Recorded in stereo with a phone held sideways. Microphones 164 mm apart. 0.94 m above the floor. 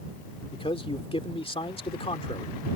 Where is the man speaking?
35° left (ahead or behind).